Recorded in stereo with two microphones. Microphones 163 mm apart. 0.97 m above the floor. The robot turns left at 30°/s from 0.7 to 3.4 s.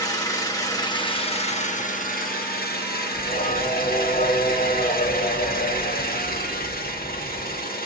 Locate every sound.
0.0 s an engine running: 160° left, 1.3 m; by 7.9 s 75° left, 1.3 m
3.1 s singing: 65° left (ahead or behind), 2.5 m; by 7.6 s 55° left (ahead or behind), 2.5 m